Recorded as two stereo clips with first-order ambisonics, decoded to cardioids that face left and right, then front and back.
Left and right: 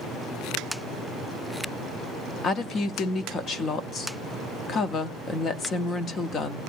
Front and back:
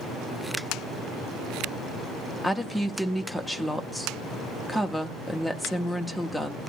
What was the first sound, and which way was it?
A woman speaking, 90° left.